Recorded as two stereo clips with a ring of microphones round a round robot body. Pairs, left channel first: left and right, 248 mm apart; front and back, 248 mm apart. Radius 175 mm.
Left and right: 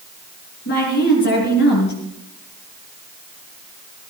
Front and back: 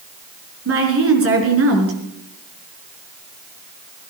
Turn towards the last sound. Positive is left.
turn(degrees=150)